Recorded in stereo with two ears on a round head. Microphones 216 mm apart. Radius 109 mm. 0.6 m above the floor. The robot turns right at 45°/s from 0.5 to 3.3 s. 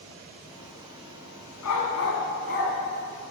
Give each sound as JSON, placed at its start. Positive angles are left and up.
{"t": 1.6, "sound": "a dog barking", "side_deg": 85, "distance_m": 1.8}